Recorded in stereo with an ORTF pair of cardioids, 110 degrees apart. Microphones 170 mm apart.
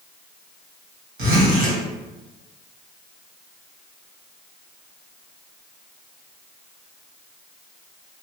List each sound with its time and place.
1.2 s a zipper: 70° right, 1.4 m